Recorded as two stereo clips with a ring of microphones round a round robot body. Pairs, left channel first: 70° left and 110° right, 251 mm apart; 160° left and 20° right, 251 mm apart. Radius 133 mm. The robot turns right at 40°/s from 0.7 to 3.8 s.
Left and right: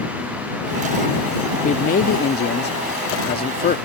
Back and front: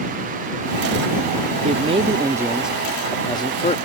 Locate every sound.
1.6 s a man speaking: 20° left; by 3.8 s 105° left